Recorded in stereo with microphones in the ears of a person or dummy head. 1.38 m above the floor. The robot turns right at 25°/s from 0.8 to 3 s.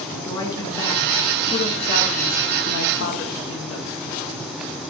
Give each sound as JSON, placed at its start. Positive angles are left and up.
{"t": 0.2, "sound": "a man speaking", "azimuth_deg": 20, "distance_m": 1.5}